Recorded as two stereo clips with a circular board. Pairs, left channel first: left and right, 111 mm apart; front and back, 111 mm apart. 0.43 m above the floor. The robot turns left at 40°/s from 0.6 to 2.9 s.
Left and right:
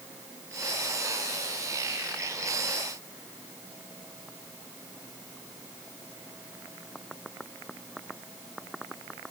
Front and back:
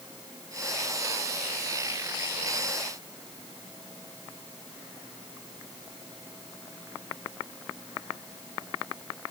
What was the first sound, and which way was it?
Only background noise.